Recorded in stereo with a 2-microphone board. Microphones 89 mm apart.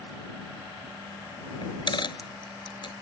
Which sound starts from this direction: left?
A dropped coin, at 1.6 s.